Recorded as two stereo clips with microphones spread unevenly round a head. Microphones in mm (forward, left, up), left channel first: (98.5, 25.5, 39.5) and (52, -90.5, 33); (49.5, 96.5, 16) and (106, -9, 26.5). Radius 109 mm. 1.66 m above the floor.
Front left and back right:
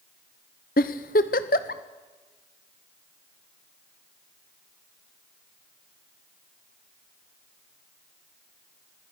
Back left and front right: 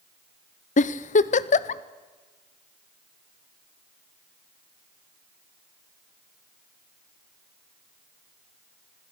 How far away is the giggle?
About 0.7 m.